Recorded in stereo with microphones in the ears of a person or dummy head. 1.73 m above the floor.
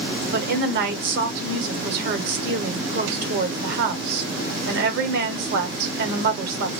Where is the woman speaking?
55° right (ahead or behind), 1.0 m.